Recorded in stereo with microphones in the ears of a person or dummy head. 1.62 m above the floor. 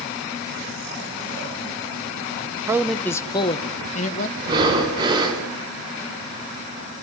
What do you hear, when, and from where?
2.7 s a man speaking: 20° right (ahead or behind), 0.7 m; by 4.3 s 45° left (ahead or behind), 1.9 m
4.4 s breathing: 25° right (ahead or behind), 4 m